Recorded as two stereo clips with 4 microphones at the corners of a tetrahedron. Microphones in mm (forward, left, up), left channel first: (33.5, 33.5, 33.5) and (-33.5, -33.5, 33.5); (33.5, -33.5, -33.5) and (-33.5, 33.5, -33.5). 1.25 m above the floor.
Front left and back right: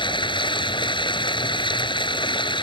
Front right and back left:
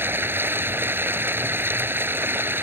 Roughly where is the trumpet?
I don't hear a trumpet.